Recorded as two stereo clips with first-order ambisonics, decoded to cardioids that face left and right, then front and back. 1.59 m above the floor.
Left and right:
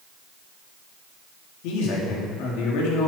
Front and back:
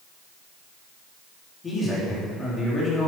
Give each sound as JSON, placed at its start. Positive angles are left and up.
{"t": 1.6, "sound": "a man speaking", "azimuth_deg": 70, "distance_m": 3.0}